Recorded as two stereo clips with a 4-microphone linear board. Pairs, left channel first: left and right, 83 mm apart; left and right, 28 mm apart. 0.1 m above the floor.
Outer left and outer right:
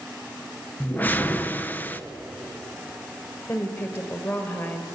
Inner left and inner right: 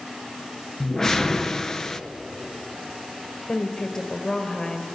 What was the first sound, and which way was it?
A whoosh, 20° left (ahead or behind).